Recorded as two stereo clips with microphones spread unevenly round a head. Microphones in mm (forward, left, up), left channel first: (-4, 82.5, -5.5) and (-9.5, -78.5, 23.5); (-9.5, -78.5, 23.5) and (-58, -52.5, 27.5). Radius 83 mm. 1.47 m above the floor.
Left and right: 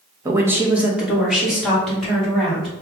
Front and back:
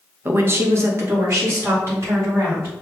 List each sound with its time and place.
0.2 s a woman speaking: 160° right, 0.9 m; by 2.7 s 175° left, 4 m